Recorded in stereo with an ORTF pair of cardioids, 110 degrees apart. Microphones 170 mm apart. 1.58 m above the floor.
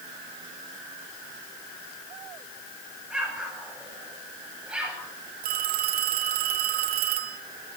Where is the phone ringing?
60° right, 2.5 m.